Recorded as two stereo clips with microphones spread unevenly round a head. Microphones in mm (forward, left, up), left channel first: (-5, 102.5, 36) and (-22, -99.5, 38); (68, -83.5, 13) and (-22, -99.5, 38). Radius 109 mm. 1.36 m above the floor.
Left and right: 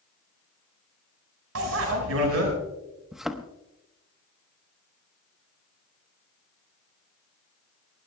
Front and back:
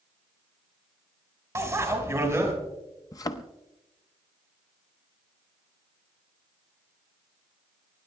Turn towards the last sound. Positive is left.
turn(degrees=-10)